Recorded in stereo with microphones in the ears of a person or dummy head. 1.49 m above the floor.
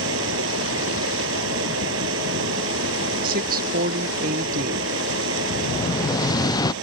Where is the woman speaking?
50° right (ahead or behind).